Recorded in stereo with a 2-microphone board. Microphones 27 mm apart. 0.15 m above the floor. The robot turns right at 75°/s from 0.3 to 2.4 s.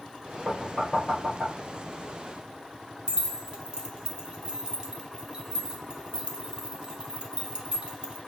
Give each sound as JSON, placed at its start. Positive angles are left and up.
{"t": 0.5, "sound": "knocking", "side_deg": -10, "distance_m": 2.5}
{"t": 3.1, "sound": "keys jangling", "side_deg": -35, "distance_m": 1.0}